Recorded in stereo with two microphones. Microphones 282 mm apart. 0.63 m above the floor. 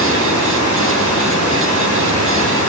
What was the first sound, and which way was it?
Running water, 80° right.